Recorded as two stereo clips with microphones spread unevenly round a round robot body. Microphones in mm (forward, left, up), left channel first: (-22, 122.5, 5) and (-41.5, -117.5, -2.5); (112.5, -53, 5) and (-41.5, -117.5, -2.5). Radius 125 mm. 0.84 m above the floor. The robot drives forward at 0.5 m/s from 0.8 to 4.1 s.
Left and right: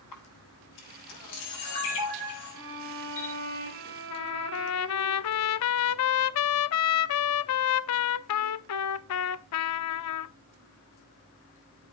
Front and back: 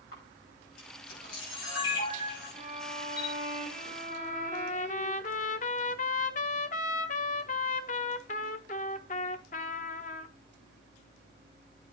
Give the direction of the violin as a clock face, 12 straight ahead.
4 o'clock.